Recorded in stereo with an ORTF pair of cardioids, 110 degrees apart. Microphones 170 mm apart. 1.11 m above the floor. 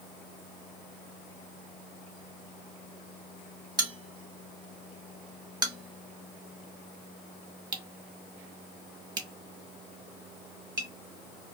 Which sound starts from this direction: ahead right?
A bell, at 3.8 s.